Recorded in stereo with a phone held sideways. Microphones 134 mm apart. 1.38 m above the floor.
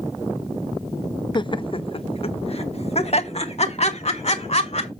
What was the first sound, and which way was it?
Laughter, 35° left (ahead or behind).